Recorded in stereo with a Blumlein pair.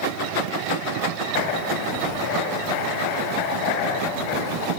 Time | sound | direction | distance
1.3 | writing | 45° left | 6 m